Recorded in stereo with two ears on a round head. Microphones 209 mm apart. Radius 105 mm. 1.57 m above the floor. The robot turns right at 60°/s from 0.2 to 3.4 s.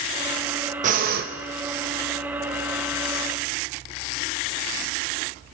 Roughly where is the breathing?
Right.